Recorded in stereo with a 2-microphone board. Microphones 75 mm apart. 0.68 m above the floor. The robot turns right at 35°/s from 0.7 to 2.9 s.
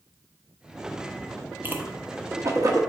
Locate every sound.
1.6 s a whoosh: 30° right (ahead or behind), 1.0 m; by 2.8 s 50° right (ahead or behind), 1.0 m